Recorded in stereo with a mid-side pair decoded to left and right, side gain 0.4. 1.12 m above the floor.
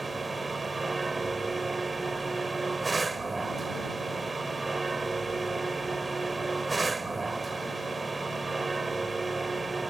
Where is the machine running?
25° right.